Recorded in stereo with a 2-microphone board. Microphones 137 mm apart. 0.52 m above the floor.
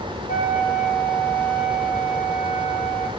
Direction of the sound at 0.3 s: 75° left (ahead or behind).